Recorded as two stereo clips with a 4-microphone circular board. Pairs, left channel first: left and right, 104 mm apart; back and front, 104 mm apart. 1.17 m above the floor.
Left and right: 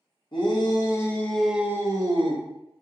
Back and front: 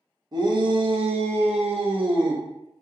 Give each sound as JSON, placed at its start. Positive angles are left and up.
{"t": 0.3, "sound": "a shout", "azimuth_deg": 50, "distance_m": 0.8}